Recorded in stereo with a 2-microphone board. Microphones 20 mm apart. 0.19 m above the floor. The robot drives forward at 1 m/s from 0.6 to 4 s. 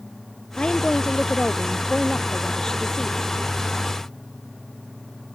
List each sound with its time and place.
0.6 s a woman speaking: 50° left (ahead or behind); by 3.3 s 35° left (ahead or behind)